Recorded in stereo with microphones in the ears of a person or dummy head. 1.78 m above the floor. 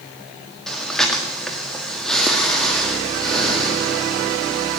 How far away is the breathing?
About 1.8 m.